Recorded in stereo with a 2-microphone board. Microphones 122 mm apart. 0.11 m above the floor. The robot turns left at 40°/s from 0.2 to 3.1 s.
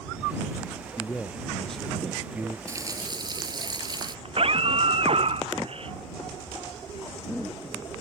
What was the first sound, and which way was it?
A man speaking, 35° left.